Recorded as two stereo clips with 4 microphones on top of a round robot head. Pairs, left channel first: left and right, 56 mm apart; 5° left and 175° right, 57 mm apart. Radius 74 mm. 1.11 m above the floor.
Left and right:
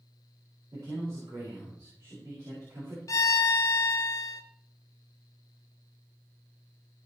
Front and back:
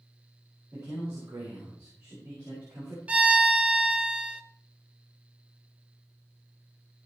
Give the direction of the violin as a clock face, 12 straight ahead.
8 o'clock.